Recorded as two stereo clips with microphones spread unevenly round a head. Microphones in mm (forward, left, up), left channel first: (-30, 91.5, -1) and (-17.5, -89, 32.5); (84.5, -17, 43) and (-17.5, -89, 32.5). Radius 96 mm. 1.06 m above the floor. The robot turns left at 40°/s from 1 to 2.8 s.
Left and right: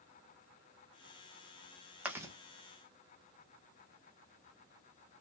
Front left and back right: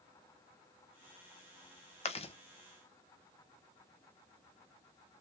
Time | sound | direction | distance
2.0 | chewing | straight ahead | 1.3 m